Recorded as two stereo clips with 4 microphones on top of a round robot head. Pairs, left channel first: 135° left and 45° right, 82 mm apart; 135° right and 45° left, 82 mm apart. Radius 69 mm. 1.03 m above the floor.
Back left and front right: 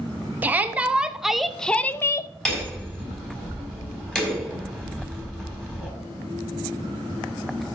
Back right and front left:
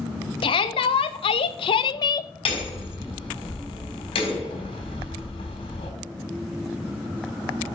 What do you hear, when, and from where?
0.4 s a shout: 115° right, 1.2 m; by 2.3 s straight behind, 0.6 m
2.5 s hammering: 145° right, 3.5 m